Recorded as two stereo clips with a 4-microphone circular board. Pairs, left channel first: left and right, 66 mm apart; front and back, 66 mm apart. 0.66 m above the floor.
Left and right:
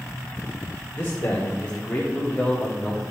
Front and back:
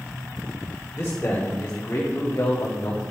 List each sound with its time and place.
0.9 s a man speaking: 50° left, 2.5 m; by 3.0 s 10° left, 1.6 m